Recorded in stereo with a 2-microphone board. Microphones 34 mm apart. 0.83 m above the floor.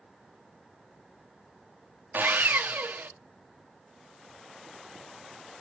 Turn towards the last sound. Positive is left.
turn(degrees=-65)  # may be behind; listen again after turning